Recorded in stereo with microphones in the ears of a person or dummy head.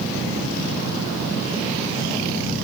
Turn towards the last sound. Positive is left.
No sound to turn to.